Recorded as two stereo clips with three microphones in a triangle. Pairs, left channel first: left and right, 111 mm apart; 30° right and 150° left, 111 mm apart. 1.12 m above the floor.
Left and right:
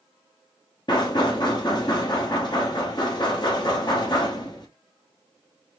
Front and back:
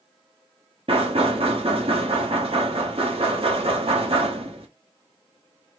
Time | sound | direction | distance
0.9 | knocking | 135° left | 0.9 m